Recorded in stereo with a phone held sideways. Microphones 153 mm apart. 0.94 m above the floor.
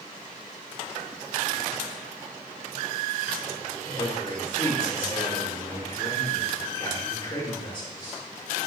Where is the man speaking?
35° left (ahead or behind), 2.5 m.